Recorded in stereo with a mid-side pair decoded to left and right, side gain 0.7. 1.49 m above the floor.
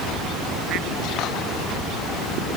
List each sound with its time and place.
Only background noise.